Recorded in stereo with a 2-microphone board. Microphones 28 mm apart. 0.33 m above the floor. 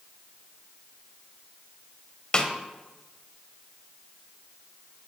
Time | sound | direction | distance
2.3 | a snare drum | 30° left (ahead or behind) | 0.8 m